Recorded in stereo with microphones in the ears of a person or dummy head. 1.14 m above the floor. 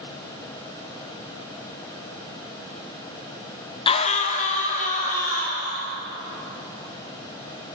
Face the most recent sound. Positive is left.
turn(degrees=45)  # may be behind; listen again after turning